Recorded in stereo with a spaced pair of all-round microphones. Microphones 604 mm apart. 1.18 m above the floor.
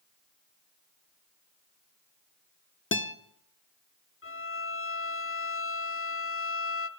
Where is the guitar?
20° left (ahead or behind), 0.8 m.